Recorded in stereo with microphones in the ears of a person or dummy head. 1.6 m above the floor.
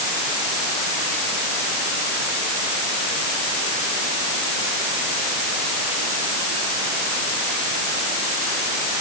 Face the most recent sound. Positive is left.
No sound to turn to.